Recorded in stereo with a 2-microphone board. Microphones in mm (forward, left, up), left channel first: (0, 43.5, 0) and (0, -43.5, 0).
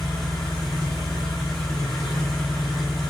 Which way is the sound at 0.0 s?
Centre (ahead or behind).